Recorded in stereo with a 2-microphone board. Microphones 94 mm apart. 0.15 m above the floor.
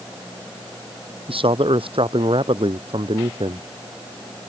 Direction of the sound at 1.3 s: 75° right (ahead or behind).